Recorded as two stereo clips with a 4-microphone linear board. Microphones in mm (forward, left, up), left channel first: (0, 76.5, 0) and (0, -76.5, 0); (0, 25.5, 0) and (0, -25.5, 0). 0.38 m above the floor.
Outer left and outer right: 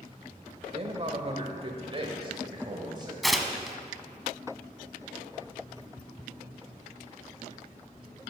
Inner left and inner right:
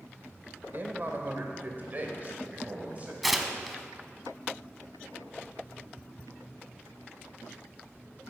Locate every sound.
0.7 s a man speaking: 40° right (ahead or behind), 1.0 m; by 3.1 s 30° right (ahead or behind), 1.6 m
3.2 s tearing paper: centre (ahead or behind), 0.7 m